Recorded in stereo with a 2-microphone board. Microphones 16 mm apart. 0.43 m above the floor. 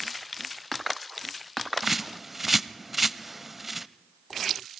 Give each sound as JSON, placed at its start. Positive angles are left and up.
{"t": 1.8, "sound": "a bird", "side_deg": -10, "distance_m": 0.6}